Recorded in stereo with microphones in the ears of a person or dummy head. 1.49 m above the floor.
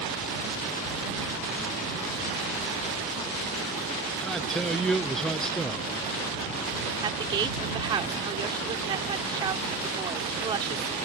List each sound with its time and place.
4.2 s a man speaking: centre (ahead or behind)
7.0 s a woman speaking: 25° right (ahead or behind)